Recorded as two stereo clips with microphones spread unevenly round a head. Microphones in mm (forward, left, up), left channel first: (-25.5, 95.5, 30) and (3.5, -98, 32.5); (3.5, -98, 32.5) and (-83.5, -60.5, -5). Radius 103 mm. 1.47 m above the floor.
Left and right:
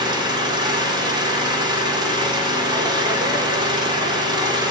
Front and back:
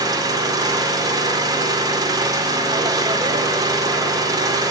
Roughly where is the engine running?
Behind right.